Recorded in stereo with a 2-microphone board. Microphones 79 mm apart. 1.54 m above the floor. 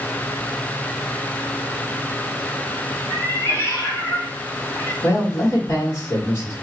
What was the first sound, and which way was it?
A cat meowing, 20° left (ahead or behind).